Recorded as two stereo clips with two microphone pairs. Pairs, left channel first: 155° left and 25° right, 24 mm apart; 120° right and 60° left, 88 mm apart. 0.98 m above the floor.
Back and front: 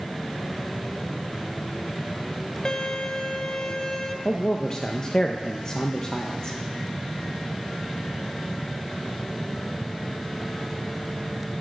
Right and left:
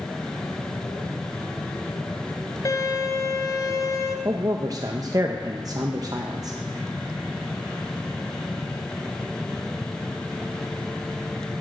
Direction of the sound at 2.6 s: 155° right.